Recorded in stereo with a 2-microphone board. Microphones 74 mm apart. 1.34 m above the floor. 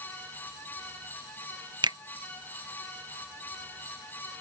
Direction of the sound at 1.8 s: 80° right.